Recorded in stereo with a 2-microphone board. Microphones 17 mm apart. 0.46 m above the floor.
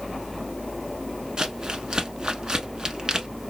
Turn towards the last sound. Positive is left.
turn(degrees=-55)  # may be behind; listen again after turning